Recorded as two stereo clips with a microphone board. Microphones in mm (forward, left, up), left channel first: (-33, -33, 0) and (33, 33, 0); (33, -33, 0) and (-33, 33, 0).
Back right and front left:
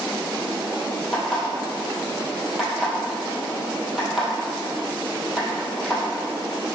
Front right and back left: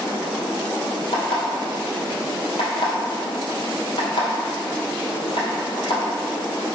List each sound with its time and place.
1.1 s an alarm clock: 45° right, 2 m